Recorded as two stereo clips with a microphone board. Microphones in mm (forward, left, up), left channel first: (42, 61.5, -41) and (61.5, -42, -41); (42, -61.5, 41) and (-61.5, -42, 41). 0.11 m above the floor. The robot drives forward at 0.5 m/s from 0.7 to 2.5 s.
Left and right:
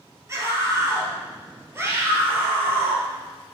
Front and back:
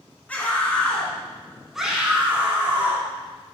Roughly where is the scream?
Right.